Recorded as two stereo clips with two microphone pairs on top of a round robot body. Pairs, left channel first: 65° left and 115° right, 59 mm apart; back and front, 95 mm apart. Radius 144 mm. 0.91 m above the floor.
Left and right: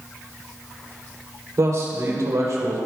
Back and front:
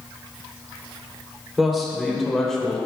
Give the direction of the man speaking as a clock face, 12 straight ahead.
3 o'clock.